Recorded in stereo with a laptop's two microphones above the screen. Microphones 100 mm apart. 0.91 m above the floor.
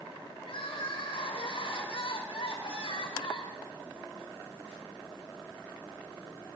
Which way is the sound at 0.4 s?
65° left (ahead or behind).